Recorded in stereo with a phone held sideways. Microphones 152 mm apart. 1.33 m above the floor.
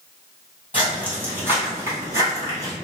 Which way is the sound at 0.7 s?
10° right (ahead or behind).